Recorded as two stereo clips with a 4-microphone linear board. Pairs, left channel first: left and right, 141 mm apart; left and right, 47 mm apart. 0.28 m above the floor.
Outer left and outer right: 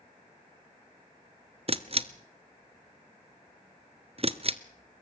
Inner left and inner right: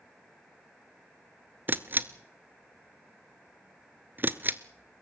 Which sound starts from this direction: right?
A camera shutter, at 1.7 s.